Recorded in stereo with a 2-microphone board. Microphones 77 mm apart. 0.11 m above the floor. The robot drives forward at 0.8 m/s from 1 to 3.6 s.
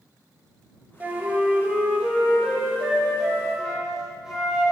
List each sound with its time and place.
1.0 s a flute: 25° right (ahead or behind), 0.8 m; by 4.7 s 5° right (ahead or behind), 2.5 m